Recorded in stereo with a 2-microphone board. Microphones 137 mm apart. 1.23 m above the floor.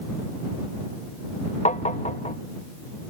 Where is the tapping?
55° left (ahead or behind).